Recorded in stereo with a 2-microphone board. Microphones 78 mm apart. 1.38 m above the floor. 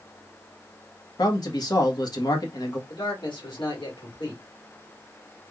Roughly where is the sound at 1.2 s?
Left.